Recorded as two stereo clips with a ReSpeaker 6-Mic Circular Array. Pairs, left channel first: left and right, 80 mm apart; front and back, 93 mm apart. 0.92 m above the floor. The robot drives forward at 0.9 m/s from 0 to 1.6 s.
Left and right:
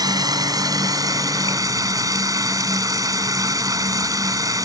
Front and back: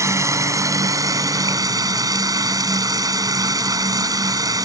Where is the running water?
125° right; by 4.7 s 135° right.